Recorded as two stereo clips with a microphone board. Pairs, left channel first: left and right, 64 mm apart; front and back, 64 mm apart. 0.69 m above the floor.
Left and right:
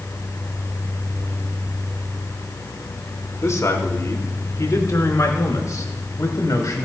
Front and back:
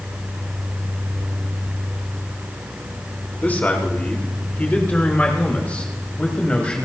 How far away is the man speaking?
About 2.5 m.